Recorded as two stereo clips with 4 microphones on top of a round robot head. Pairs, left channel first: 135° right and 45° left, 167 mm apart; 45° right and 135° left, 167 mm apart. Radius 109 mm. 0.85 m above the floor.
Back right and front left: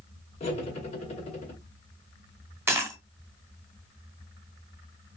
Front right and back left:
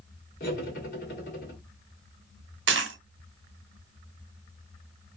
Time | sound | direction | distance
0.4 | cutlery clinking | 80° right | 1.9 m
2.7 | a dropped coin | 125° left | 0.7 m